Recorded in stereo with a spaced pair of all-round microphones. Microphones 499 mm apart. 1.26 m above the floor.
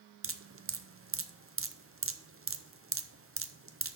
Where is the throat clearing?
No throat clearing in this recording.